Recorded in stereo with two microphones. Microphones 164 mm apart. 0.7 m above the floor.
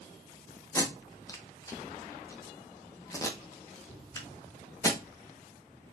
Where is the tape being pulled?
20° left (ahead or behind), 0.9 m.